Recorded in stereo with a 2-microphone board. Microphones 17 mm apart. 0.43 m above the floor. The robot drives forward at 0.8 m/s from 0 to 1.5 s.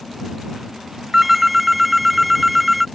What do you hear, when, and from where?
1.1 s a phone ringing: 10° right (ahead or behind); by 2.9 s 5° right (ahead or behind)